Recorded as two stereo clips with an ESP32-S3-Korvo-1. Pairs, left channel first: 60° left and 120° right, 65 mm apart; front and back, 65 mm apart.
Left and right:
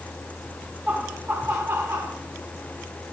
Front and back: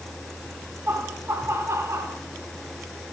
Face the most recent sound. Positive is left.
turn(degrees=-155)